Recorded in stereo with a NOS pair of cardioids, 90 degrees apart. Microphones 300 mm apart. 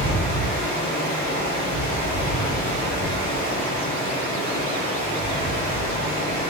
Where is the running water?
50° left, 1.7 m.